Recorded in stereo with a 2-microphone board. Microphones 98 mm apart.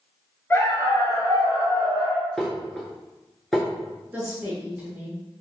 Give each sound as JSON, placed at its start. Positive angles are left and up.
{"t": 0.5, "sound": "a dog barking", "side_deg": 25, "distance_m": 0.6}
{"t": 2.4, "sound": "dishes clattering", "side_deg": 0, "distance_m": 0.9}
{"t": 4.1, "sound": "a woman speaking", "side_deg": -15, "distance_m": 1.1}